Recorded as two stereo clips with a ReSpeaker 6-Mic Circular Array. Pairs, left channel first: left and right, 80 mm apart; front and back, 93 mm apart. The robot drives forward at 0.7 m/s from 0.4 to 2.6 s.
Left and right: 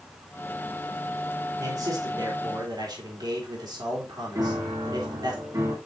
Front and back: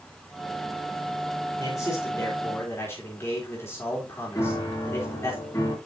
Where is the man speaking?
50° right, 3.5 m; by 5.3 s 65° right, 3 m.